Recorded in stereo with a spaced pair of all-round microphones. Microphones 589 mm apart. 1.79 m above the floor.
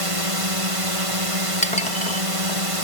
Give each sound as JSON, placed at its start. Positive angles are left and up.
{"t": 0.0, "sound": "a drone", "side_deg": -60}
{"t": 1.6, "sound": "dishes clattering", "side_deg": 10}